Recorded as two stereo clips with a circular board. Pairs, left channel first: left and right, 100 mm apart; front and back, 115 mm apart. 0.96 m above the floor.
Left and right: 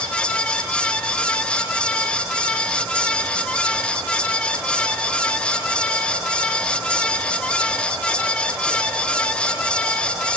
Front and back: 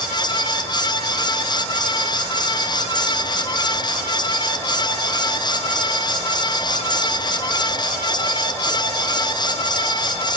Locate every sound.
Only background noise.